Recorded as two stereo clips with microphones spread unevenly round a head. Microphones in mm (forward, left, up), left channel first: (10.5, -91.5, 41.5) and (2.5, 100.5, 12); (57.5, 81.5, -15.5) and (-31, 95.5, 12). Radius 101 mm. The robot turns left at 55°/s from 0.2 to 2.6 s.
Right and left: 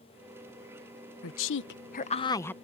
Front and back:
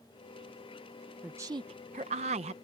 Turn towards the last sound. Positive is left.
turn(degrees=-175)